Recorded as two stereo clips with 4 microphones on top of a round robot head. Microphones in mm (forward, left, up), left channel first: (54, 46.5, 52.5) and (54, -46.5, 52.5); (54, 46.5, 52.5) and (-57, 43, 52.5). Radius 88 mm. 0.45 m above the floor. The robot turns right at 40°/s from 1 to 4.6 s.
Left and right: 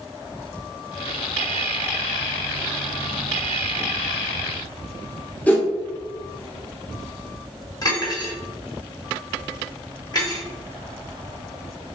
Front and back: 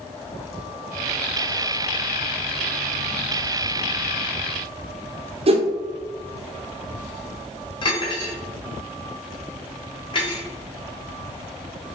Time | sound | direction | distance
5.5 | a whoosh | 165° left | 0.6 m
7.8 | cutlery clinking | 45° left | 1.1 m